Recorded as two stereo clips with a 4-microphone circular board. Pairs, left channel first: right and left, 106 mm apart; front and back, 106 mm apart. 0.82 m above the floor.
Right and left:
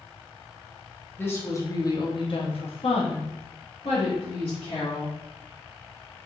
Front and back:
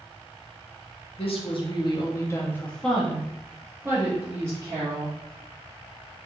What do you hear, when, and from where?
1.2 s a woman speaking: 20° right, 0.9 m; by 5.2 s 125° right, 1.7 m